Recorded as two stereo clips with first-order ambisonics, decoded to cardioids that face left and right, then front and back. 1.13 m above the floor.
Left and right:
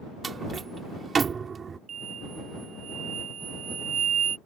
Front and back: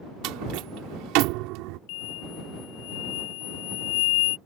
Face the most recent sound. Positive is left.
turn(degrees=-25)